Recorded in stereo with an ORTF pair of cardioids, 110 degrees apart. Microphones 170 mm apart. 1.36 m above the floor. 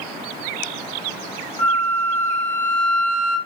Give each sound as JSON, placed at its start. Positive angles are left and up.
{"t": 1.6, "sound": "a flute", "azimuth_deg": 10, "distance_m": 1.0}